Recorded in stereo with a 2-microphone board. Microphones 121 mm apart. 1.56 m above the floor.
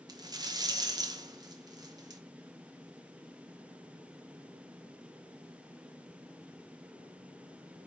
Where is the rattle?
30° right (ahead or behind), 0.7 m.